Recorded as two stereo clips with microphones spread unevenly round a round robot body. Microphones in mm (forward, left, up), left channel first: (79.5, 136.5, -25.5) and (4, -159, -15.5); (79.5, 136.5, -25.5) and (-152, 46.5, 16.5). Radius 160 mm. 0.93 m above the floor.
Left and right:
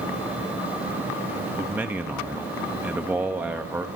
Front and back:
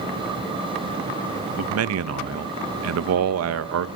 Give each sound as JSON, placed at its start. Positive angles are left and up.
{"t": 1.6, "sound": "a man speaking", "azimuth_deg": 170, "distance_m": 0.6}